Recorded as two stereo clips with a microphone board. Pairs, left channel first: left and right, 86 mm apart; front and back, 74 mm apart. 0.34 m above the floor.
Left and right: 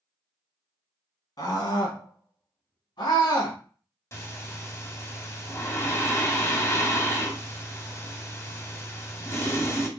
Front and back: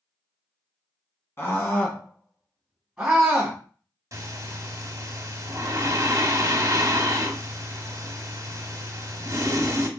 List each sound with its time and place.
1.4 s a scream: 55° left, 2.5 m; by 3.6 s 110° left, 2 m
4.1 s breathing: 145° left, 1.2 m